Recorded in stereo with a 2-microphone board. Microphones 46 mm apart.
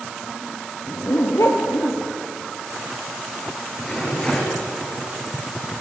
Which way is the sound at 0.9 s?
80° left.